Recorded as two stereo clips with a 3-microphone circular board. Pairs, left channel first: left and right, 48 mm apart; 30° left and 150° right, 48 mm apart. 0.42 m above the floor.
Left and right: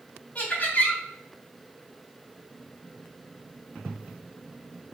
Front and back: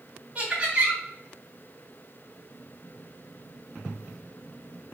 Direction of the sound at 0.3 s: 145° left.